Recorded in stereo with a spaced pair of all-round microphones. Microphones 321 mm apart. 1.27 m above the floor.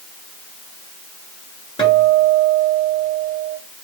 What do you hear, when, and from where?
1.8 s a guitar: 15° left (ahead or behind), 6 m